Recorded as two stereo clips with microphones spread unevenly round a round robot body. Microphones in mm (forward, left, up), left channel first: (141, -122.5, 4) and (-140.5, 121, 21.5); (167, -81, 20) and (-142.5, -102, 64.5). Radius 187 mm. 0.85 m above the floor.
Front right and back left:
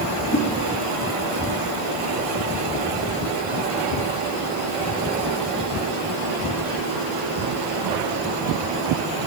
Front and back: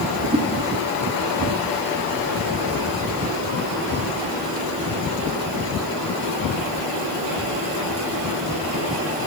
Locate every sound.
0.3 s a whoosh: 110° right, 1.4 m